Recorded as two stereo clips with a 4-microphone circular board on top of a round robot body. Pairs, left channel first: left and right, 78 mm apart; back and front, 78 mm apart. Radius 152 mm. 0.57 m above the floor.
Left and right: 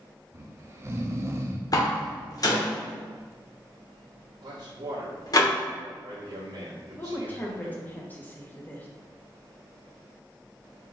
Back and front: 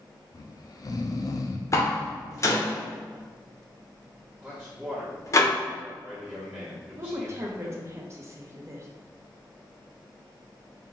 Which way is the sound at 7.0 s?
35° left.